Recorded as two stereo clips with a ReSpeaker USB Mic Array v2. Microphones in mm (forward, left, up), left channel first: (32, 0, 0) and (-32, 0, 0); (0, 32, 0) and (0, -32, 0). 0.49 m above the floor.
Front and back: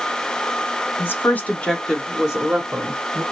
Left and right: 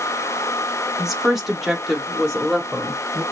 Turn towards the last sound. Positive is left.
turn(degrees=180)